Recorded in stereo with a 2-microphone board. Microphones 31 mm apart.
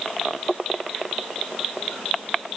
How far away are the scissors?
No scissors in this recording.